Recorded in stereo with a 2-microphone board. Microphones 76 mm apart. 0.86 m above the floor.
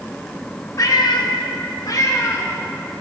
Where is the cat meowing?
50° left (ahead or behind), 1.0 m; by 3.0 s 30° left (ahead or behind), 2 m.